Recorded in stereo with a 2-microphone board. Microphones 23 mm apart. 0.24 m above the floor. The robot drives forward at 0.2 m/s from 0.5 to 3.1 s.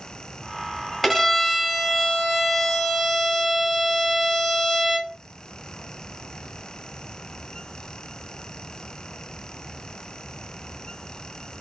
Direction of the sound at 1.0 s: 5° right (ahead or behind).